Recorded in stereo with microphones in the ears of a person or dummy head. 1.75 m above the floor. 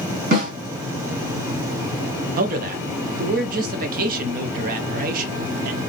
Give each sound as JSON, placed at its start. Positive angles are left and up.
{"t": 0.3, "sound": "a snare drum", "side_deg": -50, "distance_m": 1.9}
{"t": 2.4, "sound": "a man speaking", "side_deg": -55, "distance_m": 0.6}